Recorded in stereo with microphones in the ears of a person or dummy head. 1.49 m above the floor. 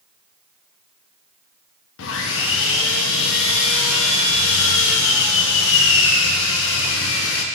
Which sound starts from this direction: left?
Sawing, at 2.0 s.